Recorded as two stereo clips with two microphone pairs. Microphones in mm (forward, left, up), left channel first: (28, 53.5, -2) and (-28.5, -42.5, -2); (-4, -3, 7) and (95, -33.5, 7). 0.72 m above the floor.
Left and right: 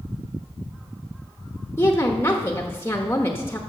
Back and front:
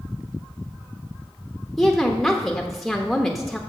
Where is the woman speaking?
70° left, 1.0 m.